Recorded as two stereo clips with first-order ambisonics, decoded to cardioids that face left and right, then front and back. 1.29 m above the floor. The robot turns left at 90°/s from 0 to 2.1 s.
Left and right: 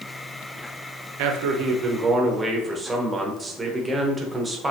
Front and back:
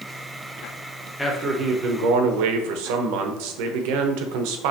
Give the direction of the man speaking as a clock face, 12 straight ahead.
3 o'clock.